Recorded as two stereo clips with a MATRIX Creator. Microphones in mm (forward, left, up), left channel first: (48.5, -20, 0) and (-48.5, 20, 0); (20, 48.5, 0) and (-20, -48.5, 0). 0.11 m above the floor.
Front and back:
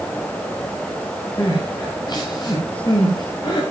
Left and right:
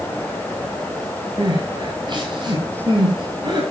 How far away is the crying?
About 8 m.